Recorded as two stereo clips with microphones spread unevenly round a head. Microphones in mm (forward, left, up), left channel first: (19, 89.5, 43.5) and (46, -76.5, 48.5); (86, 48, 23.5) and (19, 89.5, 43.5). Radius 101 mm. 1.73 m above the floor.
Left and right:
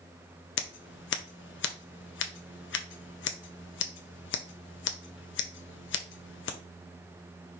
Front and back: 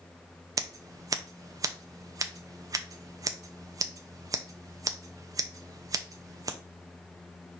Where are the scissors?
125° left, 0.5 m.